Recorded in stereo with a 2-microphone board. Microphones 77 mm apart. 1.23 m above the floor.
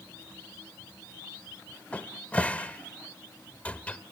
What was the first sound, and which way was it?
A cupboard door, 15° left (ahead or behind).